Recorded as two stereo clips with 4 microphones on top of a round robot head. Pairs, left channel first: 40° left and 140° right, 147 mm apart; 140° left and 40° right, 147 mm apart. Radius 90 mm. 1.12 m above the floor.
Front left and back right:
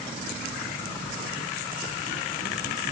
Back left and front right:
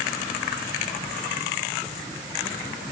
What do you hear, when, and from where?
Only background noise.